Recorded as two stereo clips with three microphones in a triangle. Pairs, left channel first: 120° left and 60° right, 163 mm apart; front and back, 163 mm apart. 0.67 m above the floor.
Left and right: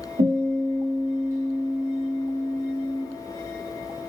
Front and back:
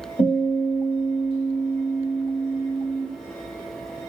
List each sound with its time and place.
0.2 s a guitar: 60° right, 3 m